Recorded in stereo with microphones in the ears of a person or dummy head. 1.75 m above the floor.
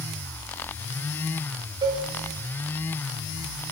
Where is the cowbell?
35° right (ahead or behind), 3.5 m.